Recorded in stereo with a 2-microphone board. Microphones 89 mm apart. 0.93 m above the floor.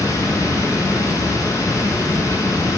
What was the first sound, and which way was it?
Running water, 35° left (ahead or behind).